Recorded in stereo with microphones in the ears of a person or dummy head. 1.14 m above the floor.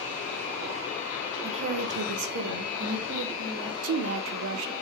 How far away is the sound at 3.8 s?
About 0.5 m.